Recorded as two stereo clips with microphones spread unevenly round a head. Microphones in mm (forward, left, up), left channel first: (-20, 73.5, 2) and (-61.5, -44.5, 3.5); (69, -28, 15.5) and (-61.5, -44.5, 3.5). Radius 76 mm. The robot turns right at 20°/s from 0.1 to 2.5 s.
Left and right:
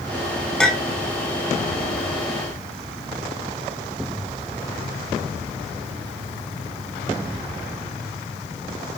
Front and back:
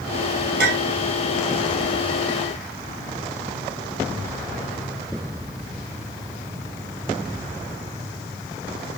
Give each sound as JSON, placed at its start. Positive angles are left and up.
{"t": 0.6, "sound": "a clink", "azimuth_deg": 155, "distance_m": 1.3}